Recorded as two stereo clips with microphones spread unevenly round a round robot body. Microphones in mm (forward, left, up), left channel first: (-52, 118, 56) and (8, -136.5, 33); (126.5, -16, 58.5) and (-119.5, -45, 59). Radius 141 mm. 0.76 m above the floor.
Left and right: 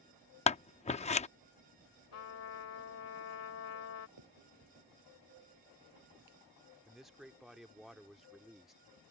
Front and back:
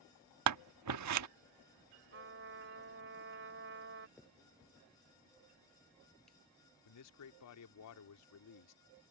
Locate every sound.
0.5 s scissors: 170° left
2.1 s a trumpet: 140° left
4.2 s a finger snap: 80° right
6.8 s a man speaking: 10° left